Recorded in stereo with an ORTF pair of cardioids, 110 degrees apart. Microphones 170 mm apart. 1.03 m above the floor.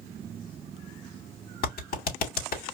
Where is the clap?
60° left, 2.0 m.